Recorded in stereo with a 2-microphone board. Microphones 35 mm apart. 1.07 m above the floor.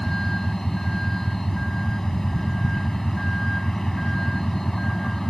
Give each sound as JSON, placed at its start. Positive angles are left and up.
{"t": 0.0, "sound": "a vehicle", "side_deg": 10}